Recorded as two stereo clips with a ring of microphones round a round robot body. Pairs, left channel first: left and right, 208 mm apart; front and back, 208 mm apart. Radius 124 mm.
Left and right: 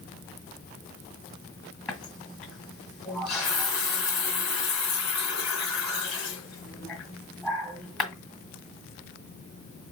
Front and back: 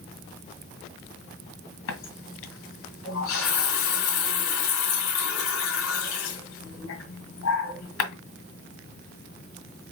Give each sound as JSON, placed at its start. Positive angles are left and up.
{"t": 1.9, "sound": "a running tap", "azimuth_deg": 0, "distance_m": 1.9}